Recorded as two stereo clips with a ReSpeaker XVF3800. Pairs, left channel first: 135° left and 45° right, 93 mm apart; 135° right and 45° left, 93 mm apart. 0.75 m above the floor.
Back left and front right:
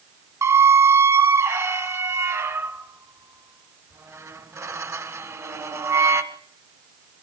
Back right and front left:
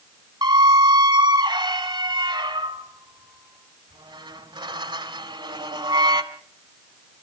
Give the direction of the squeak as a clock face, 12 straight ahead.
12 o'clock.